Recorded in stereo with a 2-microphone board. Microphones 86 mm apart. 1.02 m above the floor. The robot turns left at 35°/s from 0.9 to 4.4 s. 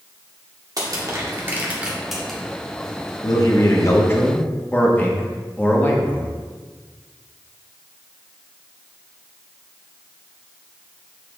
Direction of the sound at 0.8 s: 45° right (ahead or behind).